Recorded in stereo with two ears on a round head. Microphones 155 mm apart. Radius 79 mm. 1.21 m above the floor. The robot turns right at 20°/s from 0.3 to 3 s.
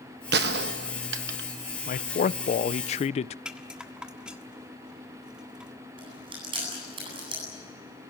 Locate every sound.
0.3 s a gunshot: 75° right (ahead or behind), 1.0 m
1.9 s a man speaking: 50° left (ahead or behind), 0.5 m; by 3.4 s 40° left (ahead or behind), 0.5 m
3.5 s a rattle: 5° right (ahead or behind), 1.5 m
6.0 s chewing: 30° right (ahead or behind), 9.5 m